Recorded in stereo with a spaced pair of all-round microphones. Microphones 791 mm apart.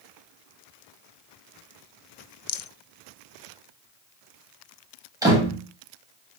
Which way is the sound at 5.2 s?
5° right (ahead or behind).